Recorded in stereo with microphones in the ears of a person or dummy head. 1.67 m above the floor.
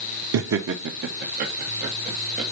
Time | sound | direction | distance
0.3 | laughter | 65° right (ahead or behind) | 0.9 m